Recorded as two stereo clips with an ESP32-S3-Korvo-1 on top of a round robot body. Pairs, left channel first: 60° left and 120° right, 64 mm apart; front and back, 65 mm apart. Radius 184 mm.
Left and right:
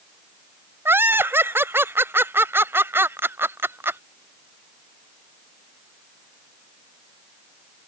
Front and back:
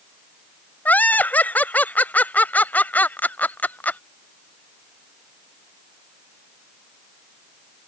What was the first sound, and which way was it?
Laughter, 65° right.